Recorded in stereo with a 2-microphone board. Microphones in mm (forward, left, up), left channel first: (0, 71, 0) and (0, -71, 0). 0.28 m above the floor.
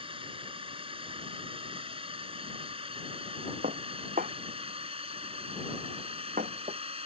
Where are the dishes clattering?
70° right (ahead or behind).